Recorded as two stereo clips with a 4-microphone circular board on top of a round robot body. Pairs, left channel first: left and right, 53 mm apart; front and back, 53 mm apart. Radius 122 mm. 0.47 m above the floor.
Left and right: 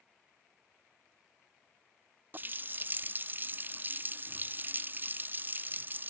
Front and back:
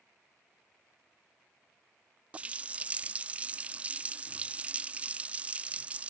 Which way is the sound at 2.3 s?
125° right.